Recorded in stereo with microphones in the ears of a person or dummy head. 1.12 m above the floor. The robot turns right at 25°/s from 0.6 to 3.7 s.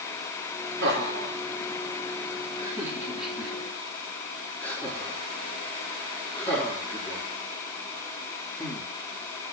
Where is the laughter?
60° right (ahead or behind), 4 m; by 8.9 s 10° left (ahead or behind), 4 m.